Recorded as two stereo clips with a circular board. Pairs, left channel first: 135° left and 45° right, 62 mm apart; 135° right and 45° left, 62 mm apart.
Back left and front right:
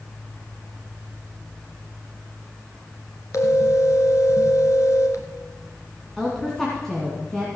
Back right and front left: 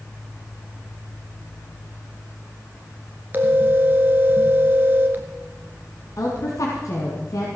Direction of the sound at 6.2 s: 145° right.